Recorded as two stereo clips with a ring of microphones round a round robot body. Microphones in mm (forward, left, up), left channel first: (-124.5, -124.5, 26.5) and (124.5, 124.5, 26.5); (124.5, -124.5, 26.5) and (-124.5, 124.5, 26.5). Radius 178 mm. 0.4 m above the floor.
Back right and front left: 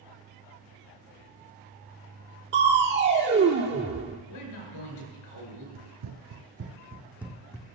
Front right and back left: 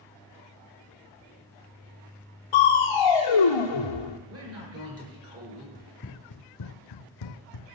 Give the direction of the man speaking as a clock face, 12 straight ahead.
6 o'clock.